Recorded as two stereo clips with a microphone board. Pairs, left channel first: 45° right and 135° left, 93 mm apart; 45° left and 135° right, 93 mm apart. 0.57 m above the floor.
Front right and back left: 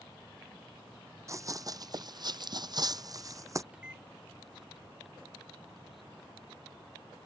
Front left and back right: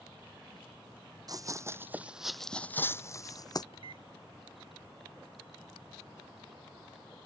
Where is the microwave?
55° left.